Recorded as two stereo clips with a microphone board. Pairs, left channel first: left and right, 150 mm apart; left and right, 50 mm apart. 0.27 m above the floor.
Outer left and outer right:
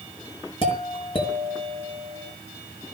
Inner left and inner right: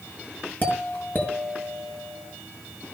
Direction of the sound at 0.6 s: 35° left (ahead or behind).